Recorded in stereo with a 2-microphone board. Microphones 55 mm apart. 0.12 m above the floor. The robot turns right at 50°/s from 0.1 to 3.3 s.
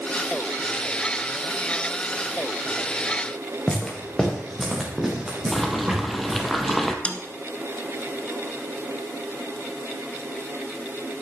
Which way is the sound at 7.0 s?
25° left (ahead or behind).